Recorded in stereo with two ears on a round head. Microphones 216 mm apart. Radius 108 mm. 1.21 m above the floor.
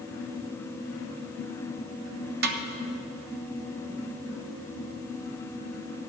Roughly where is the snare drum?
Right.